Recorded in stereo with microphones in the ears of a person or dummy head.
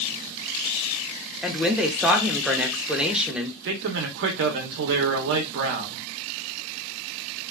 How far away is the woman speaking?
About 0.6 m.